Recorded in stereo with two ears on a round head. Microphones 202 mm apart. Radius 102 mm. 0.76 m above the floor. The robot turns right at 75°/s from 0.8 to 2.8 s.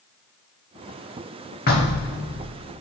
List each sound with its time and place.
1.7 s knocking: 40° left, 1.4 m; by 2.5 s 105° left, 1.4 m